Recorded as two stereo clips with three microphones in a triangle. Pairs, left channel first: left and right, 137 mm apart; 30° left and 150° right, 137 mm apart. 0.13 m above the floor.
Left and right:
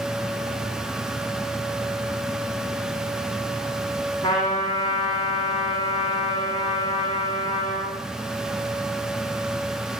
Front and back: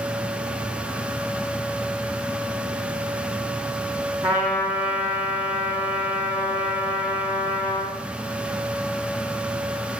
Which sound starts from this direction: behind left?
A trumpet, at 4.2 s.